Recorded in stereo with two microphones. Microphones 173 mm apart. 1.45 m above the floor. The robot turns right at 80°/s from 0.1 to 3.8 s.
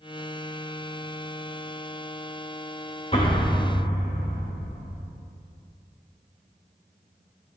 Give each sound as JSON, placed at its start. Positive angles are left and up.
{"t": 3.1, "sound": "an explosion", "azimuth_deg": 40, "distance_m": 2.0}